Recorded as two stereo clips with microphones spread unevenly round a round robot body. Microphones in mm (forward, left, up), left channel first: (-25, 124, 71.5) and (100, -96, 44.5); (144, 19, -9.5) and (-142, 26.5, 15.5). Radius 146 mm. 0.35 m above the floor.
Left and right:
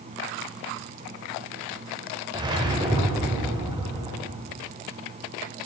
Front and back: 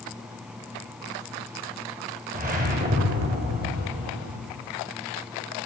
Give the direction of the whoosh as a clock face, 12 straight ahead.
4 o'clock.